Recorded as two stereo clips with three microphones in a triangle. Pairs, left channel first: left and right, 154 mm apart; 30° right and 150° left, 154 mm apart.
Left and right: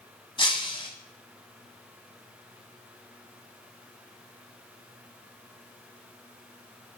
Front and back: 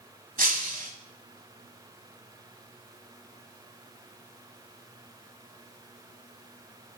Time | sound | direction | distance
0.4 | breaking glass | 140° left | 1.3 m